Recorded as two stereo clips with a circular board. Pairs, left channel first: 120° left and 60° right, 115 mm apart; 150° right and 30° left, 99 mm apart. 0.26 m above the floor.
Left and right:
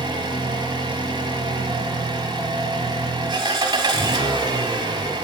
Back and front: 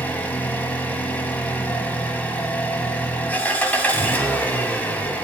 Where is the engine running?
80° right, 1.6 m.